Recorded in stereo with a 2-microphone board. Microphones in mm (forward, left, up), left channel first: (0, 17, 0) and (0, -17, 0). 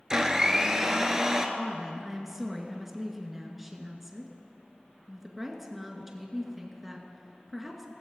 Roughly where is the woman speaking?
Centre.